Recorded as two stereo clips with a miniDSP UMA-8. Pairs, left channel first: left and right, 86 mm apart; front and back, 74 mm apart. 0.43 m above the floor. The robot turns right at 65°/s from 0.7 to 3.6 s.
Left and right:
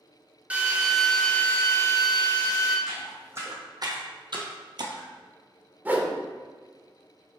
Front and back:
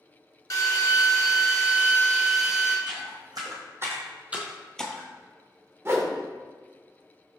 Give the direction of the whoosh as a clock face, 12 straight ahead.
5 o'clock.